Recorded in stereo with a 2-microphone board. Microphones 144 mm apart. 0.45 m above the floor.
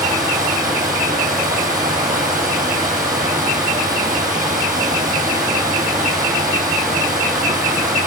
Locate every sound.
0.0 s running water: 80° right, 7.5 m